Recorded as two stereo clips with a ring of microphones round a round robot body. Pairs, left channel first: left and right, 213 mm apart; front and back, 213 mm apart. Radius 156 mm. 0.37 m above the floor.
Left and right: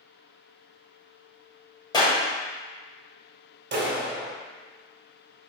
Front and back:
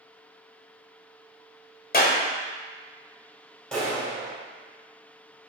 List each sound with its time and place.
1.9 s a clap: 25° left, 1.6 m
3.7 s a clap: 85° right, 1.6 m